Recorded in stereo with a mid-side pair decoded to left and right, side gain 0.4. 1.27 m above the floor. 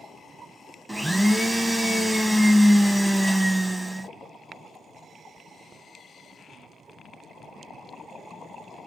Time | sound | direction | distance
0.9 | a blender | 5° right | 0.6 m